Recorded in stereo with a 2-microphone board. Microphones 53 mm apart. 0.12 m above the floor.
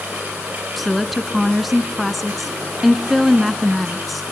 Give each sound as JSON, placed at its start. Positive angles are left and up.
{"t": 0.8, "sound": "a woman speaking", "side_deg": 0, "distance_m": 1.1}